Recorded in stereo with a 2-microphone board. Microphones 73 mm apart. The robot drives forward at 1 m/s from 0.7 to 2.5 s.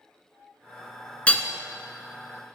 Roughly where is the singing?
I don't hear singing.